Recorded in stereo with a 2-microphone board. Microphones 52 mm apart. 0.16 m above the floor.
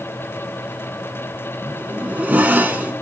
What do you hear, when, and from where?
1.6 s a zipper: 30° right (ahead or behind), 0.9 m